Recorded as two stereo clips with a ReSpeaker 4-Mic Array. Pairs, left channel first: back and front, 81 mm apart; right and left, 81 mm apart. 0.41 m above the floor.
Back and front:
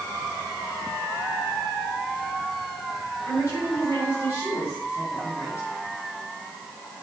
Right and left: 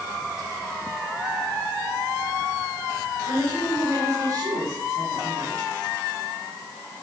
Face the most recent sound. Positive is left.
turn(degrees=135)